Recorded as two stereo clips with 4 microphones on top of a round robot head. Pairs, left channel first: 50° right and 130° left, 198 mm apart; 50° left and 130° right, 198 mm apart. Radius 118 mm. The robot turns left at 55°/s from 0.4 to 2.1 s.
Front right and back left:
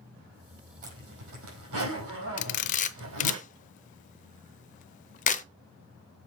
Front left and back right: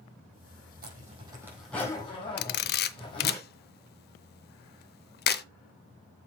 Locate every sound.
0.8 s a zipper: 175° right, 4.5 m; by 3.4 s 115° left, 4.5 m
2.4 s a camera shutter: 5° left, 0.5 m